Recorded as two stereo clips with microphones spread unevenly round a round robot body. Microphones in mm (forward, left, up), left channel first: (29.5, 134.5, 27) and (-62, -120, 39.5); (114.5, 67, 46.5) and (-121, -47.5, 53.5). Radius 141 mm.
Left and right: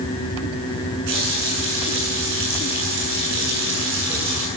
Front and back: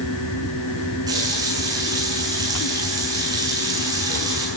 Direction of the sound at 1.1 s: 75° right.